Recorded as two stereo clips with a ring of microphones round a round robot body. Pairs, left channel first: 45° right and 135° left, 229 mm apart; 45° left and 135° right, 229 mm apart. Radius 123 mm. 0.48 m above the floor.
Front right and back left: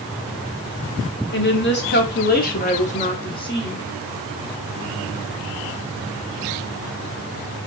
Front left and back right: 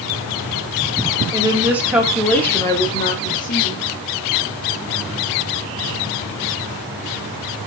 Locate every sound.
1.3 s a woman speaking: 65° right, 1.4 m; by 3.8 s 25° left, 1.2 m